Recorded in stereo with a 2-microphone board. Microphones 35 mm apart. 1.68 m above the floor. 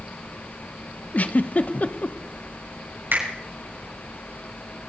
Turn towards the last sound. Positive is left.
turn(degrees=-80)